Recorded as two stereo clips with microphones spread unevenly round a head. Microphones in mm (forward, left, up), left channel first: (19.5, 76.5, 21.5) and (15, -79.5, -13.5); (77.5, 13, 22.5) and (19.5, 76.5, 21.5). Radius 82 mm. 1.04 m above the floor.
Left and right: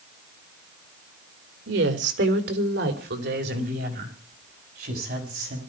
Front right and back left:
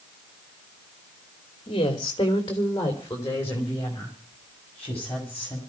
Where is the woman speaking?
100° right, 2 m; by 5.6 s 130° right, 7 m.